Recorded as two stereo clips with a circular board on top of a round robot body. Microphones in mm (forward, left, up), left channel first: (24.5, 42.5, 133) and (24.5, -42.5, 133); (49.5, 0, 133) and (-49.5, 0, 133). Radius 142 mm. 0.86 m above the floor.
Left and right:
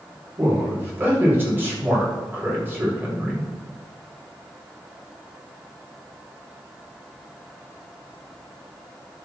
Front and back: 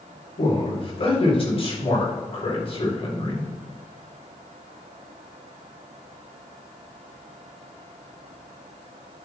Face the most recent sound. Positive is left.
turn(degrees=-25)